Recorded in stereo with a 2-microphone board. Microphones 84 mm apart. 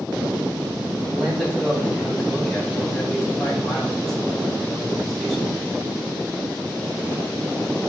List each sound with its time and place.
1.1 s a man speaking: centre (ahead or behind), 5 m